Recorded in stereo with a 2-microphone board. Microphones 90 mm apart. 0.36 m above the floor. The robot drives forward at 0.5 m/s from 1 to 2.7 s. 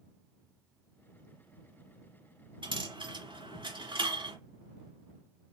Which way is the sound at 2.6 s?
65° right (ahead or behind).